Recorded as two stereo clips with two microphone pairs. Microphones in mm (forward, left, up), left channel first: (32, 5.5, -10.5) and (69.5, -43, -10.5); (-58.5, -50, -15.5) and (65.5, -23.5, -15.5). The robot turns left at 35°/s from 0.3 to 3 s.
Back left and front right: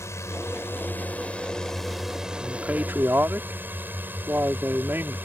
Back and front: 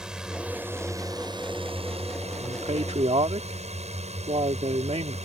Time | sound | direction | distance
0.0 | a drone | 95° left | ?
2.4 | a man speaking | 15° left | ?